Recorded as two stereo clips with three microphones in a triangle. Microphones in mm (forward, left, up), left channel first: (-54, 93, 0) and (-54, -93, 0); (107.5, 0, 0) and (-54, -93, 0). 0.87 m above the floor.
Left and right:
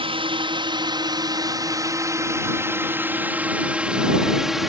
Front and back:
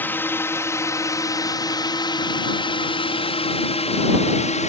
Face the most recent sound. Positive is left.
turn(degrees=0)